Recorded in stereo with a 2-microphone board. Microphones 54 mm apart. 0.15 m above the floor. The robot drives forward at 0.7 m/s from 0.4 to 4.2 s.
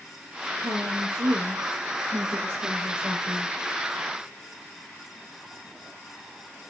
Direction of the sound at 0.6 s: 50° right (ahead or behind).